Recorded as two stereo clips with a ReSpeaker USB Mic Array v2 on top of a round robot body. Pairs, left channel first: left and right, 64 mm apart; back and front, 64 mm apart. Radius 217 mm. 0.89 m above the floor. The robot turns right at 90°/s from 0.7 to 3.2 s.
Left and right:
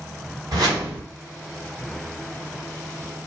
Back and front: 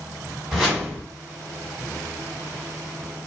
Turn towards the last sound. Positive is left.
turn(degrees=145)